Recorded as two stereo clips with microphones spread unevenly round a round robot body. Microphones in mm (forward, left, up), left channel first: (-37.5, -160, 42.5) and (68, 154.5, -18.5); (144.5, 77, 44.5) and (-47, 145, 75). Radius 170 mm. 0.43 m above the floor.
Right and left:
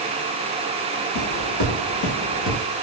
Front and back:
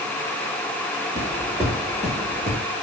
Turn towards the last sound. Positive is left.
turn(degrees=-160)